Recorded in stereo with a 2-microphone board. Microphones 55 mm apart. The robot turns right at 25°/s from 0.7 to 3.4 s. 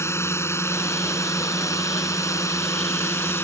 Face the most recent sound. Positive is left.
turn(degrees=125)